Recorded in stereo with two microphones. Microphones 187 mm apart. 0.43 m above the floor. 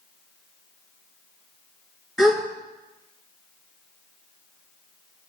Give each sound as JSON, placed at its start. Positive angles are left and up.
{"t": 2.2, "sound": "a gasp", "side_deg": 0, "distance_m": 2.0}